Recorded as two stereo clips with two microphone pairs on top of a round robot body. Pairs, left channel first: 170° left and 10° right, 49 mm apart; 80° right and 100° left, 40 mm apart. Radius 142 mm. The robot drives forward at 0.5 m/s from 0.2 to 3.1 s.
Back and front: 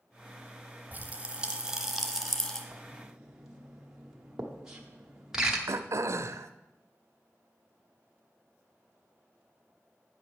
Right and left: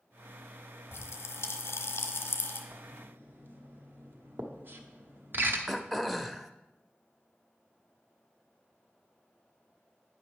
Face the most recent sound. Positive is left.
turn(degrees=10)